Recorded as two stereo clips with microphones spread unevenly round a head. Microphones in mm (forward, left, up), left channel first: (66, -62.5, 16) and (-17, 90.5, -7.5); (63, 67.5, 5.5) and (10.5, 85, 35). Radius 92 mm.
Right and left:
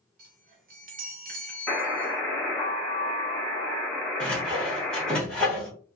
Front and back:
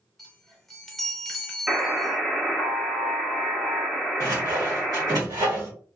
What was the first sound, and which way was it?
A chime, 95° left.